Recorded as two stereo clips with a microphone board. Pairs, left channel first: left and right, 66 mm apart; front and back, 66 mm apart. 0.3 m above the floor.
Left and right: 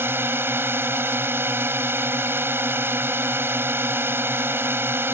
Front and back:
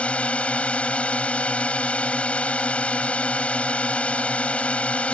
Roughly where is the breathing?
No breathing in this recording.